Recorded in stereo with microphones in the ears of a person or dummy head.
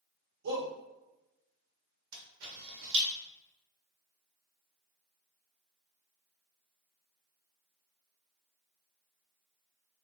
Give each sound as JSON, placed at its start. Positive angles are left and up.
{"t": 0.4, "sound": "a shout", "side_deg": -75, "distance_m": 1.5}
{"t": 2.1, "sound": "a camera shutter", "side_deg": -75, "distance_m": 1.6}